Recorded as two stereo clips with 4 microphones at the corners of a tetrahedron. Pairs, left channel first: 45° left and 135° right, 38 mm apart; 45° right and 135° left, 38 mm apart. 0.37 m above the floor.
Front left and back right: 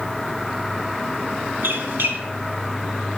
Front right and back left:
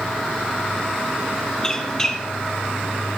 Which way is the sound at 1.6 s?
120° right.